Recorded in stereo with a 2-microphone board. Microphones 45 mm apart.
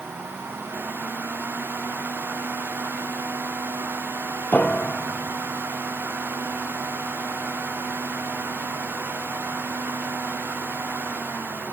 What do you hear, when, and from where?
4.5 s a piano: 35° left (ahead or behind), 0.7 m